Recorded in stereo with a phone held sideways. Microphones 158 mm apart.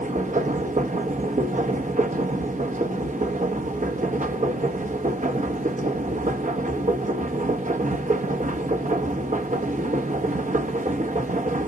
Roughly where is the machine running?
Right.